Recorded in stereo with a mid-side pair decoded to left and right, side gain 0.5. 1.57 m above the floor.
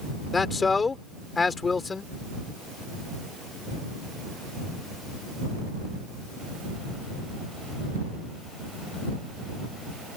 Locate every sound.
0.3 s a man speaking: 30° left